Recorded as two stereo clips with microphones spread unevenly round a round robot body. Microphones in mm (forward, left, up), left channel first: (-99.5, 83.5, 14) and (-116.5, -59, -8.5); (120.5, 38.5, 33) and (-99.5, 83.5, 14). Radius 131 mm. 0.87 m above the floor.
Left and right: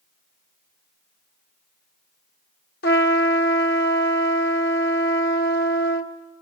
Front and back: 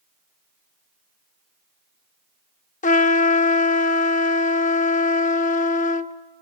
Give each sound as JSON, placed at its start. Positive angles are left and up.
{"t": 2.8, "sound": "a trumpet", "azimuth_deg": 45, "distance_m": 1.2}